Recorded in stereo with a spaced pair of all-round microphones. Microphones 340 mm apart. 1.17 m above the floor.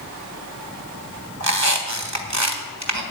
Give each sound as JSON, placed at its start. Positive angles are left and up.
{"t": 1.4, "sound": "a squeak", "side_deg": -55, "distance_m": 1.6}